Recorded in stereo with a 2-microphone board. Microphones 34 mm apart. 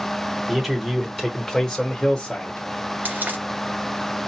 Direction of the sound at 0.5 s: 10° right (ahead or behind).